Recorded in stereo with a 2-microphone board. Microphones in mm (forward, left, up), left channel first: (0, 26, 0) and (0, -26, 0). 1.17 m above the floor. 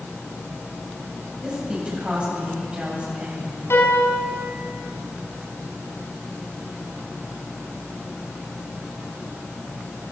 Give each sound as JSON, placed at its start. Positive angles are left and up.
{"t": 1.4, "sound": "a woman speaking", "side_deg": -20, "distance_m": 8.5}
{"t": 3.7, "sound": "a piano", "side_deg": 55, "distance_m": 5.0}